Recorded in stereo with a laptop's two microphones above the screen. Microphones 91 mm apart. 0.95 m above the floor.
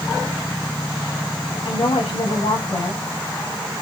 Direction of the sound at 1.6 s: 80° left.